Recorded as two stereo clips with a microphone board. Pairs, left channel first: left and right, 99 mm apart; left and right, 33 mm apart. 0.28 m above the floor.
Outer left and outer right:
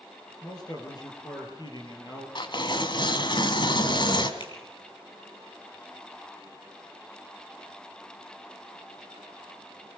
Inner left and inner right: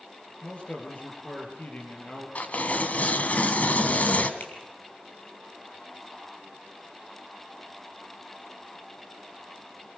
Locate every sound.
0.4 s a man speaking: 40° left (ahead or behind), 5.5 m; by 2.2 s 45° left (ahead or behind), 7 m
2.4 s tearing paper: 55° left (ahead or behind), 1.6 m
4.4 s a finger snap: 55° left (ahead or behind), 4.5 m